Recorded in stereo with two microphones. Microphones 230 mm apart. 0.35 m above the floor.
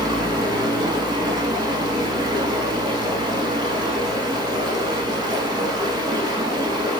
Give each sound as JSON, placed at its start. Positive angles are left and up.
{"t": 0.0, "sound": "running water", "side_deg": -20, "distance_m": 0.7}